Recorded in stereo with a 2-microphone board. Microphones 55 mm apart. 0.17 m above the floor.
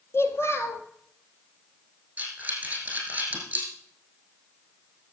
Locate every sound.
0.1 s a child speaking: 45° left (ahead or behind), 2 m
2.2 s breathing: 25° right (ahead or behind), 5 m